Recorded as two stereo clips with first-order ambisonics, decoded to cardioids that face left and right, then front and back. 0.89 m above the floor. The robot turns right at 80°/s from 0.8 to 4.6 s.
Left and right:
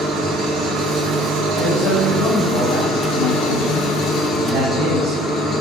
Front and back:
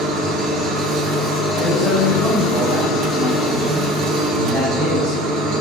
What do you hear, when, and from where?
0.0 s an engine running: 135° right, 3.5 m; by 5.6 s 170° left, 3.5 m
1.6 s a man speaking: 45° left, 3 m; by 5.2 s 75° right, 3 m